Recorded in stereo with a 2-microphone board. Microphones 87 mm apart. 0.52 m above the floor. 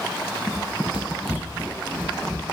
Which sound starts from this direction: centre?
Running footsteps, at 0.5 s.